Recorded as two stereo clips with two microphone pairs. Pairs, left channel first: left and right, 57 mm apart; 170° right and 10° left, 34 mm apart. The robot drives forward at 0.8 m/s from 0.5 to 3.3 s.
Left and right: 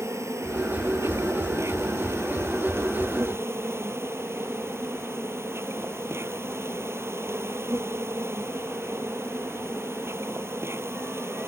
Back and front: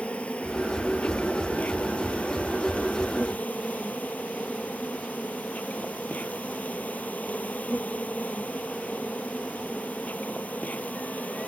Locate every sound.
0.0 s an insect: 120° right; by 11.5 s 130° right